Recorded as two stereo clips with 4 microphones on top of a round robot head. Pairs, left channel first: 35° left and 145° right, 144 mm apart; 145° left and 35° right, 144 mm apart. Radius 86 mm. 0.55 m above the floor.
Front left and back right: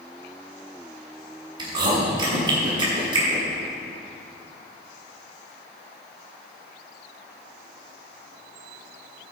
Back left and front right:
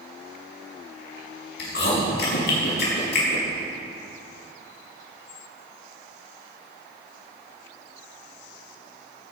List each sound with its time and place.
1.6 s chewing: 155° left, 5.5 m